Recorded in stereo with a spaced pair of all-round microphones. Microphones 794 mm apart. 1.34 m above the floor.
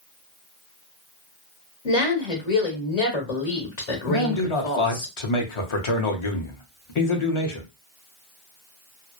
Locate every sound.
1.9 s a woman speaking: 55° left (ahead or behind), 1.3 m
4.1 s a man speaking: 40° left (ahead or behind), 0.8 m